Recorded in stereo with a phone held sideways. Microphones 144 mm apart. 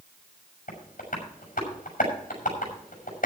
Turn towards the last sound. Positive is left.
turn(degrees=85)